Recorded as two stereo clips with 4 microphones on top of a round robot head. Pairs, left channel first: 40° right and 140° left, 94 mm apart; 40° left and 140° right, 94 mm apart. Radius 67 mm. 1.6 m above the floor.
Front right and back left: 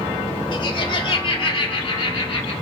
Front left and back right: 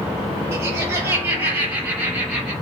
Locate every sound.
0.5 s laughter: 75° right, 5.5 m; by 2.5 s 60° right, 6 m